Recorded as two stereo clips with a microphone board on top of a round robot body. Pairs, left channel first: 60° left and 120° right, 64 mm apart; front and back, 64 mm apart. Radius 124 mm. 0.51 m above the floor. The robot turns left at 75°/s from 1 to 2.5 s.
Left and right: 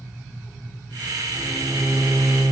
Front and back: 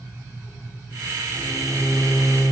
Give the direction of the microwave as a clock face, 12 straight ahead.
1 o'clock.